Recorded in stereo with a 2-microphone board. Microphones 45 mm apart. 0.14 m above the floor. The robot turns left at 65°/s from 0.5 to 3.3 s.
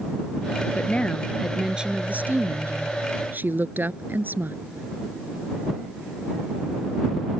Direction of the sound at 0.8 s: 45° left.